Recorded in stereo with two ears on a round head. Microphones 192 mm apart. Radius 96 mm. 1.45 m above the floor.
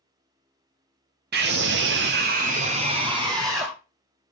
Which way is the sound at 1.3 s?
45° right (ahead or behind).